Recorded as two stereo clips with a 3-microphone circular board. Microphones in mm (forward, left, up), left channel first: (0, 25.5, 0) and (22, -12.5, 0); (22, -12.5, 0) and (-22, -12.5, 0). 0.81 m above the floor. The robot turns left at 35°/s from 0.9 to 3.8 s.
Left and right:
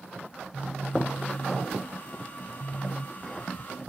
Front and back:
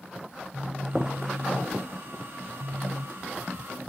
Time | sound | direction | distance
0.3 | a phone buzzing | 125° right | 1.3 m